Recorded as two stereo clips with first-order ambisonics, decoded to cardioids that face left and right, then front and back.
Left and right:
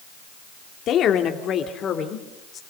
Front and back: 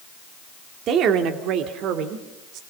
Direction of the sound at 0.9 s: 135° left.